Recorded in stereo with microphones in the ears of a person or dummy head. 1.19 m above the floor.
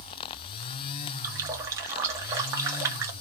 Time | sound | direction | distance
1.2 | a running tap | 15° right (ahead or behind) | 0.8 m